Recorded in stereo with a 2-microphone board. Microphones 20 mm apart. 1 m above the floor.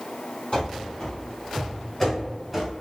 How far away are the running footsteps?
About 1.9 m.